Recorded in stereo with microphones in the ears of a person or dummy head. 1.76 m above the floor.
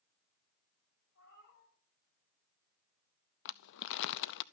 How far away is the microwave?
No microwave in this recording.